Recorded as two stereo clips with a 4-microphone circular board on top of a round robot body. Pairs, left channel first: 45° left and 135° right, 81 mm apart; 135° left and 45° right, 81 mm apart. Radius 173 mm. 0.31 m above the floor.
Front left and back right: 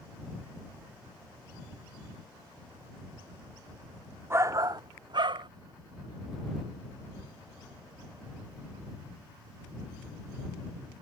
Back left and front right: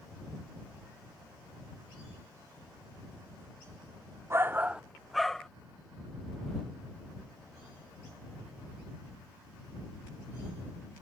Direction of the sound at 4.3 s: 85° right.